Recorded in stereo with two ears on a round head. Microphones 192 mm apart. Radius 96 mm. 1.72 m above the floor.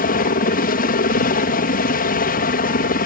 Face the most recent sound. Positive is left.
turn(degrees=45)  # may be behind; listen again after turning